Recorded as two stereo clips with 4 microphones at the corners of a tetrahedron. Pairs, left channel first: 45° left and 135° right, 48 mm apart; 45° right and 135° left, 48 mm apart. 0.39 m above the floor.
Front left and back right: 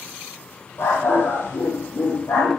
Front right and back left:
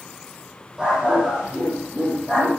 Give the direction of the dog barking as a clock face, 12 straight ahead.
10 o'clock.